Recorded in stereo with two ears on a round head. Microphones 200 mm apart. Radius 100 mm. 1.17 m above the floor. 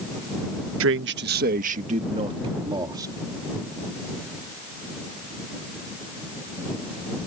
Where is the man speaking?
60° right (ahead or behind); by 3.1 s 15° right (ahead or behind).